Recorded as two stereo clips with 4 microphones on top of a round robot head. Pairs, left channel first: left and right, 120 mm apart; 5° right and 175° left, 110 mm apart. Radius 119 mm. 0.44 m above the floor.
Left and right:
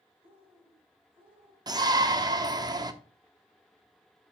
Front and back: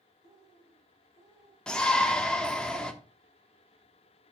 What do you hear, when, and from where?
0.2 s a bird: 135° right, 5.5 m
1.7 s a shout: 80° right, 1.0 m